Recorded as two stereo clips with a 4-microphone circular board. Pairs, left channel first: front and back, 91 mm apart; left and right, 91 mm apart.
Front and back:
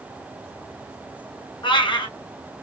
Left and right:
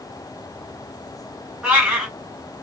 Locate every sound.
1.6 s a cat meowing: 10° right, 1.8 m